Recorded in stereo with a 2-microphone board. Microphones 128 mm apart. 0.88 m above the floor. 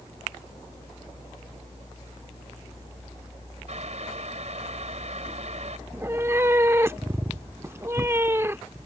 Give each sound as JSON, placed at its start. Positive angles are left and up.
{"t": 3.7, "sound": "boiling", "side_deg": -60}
{"t": 5.9, "sound": "a cat meowing", "side_deg": -20}